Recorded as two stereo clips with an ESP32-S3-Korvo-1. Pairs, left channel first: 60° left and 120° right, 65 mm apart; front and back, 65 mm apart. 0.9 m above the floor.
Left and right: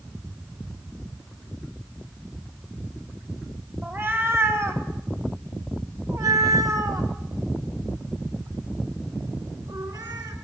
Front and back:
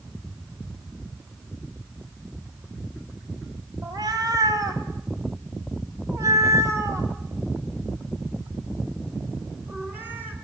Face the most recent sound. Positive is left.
turn(degrees=-120)